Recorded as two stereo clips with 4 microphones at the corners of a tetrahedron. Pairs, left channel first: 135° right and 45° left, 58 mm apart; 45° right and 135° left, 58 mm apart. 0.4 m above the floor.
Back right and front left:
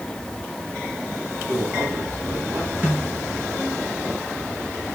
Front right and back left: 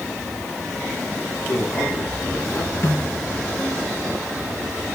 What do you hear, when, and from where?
1.4 s a man speaking: 20° right, 3.5 m; by 2.7 s 5° right, 3.5 m
2.8 s a snare drum: 5° right, 7 m